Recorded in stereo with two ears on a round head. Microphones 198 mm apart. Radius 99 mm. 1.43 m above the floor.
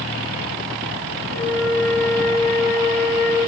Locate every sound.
1.3 s a flute: 65° left (ahead or behind), 6 m